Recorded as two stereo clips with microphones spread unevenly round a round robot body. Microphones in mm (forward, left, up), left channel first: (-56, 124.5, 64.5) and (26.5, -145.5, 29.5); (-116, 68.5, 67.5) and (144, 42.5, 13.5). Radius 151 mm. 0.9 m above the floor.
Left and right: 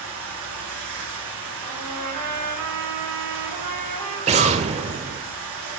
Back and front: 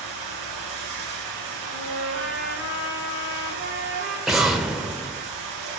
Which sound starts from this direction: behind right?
An explosion, at 4.3 s.